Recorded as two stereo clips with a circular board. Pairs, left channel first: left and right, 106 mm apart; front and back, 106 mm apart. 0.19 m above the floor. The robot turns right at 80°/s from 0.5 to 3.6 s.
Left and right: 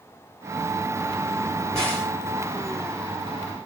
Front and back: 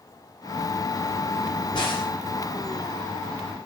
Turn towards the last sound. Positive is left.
turn(degrees=155)